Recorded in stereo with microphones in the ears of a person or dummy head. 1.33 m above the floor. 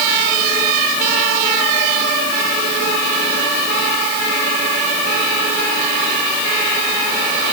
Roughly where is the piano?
I don't hear a piano.